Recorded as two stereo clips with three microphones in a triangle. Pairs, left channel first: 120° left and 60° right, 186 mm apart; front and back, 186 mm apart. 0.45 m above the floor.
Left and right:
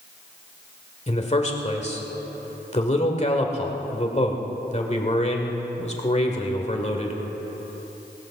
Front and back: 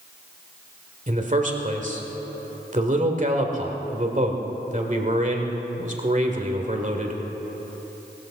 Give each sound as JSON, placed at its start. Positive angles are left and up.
{"t": 1.1, "sound": "a man speaking", "azimuth_deg": 155, "distance_m": 1.7}